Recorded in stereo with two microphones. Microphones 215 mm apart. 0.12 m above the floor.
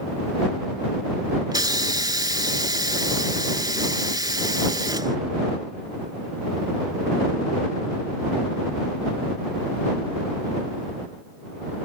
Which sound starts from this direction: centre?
A hiss, at 1.5 s.